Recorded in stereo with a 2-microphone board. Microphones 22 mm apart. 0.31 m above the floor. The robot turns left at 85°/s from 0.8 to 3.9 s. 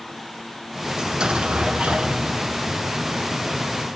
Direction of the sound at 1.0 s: 30° right.